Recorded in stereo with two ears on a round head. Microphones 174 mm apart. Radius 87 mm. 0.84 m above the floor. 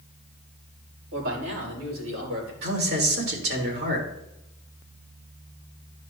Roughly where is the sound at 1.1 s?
Right.